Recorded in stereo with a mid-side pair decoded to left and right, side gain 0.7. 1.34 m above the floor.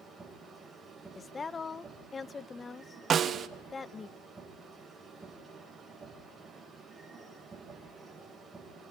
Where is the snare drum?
35° right, 1.0 m.